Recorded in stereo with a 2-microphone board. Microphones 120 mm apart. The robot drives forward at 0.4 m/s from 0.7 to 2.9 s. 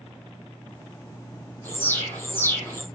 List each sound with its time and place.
1.6 s an alarm: 15° left (ahead or behind), 2.5 m; by 2.8 s 20° left (ahead or behind), 2.5 m